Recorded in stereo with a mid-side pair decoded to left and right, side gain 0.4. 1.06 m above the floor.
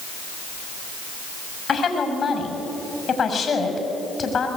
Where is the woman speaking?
50° left, 6.5 m.